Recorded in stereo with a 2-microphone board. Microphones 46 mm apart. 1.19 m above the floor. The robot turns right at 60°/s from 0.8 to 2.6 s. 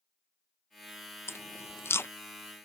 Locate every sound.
1.3 s chewing: 65° left (ahead or behind); by 2.1 s 60° left (ahead or behind)